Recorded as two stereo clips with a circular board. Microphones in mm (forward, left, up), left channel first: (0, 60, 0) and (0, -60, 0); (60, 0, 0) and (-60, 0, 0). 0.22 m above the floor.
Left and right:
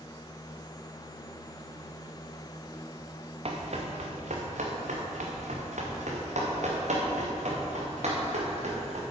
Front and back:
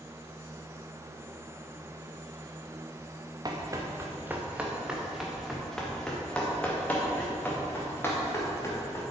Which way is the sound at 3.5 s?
125° right.